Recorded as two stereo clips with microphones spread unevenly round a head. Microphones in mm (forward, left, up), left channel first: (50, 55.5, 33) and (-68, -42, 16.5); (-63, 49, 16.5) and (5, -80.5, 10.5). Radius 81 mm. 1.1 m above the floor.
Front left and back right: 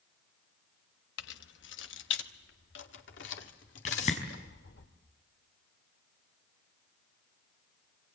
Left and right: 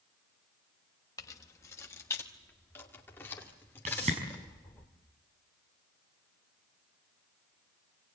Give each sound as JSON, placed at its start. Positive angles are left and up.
{"t": 1.2, "sound": "keys jangling", "azimuth_deg": 45, "distance_m": 1.0}
{"t": 3.9, "sound": "a whoosh", "azimuth_deg": -5, "distance_m": 5.5}